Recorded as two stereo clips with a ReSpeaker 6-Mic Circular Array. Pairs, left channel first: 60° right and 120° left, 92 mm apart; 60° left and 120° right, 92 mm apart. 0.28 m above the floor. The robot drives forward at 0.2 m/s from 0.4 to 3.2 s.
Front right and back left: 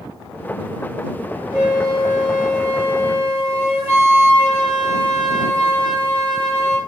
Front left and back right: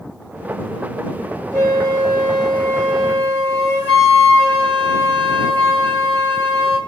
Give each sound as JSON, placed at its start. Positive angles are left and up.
{"t": 1.5, "sound": "a flute", "azimuth_deg": 95, "distance_m": 1.6}